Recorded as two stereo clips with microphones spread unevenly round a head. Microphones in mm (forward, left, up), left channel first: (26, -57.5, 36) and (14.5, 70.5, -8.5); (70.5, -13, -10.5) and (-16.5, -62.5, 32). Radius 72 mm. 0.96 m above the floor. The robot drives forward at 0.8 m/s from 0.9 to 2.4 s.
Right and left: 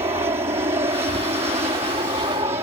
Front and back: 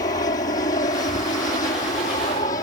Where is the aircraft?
45° left.